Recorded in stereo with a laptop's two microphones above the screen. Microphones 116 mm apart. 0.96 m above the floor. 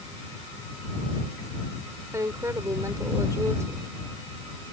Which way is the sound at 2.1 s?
25° right (ahead or behind).